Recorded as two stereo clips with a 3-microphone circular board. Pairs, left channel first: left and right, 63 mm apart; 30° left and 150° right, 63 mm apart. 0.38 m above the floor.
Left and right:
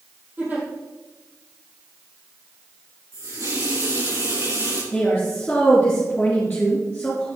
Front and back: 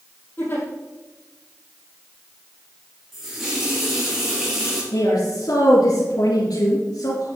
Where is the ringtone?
No ringtone in this recording.